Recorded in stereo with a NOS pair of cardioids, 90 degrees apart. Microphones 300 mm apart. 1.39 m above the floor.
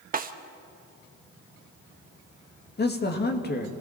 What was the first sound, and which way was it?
A snare drum, 30° right.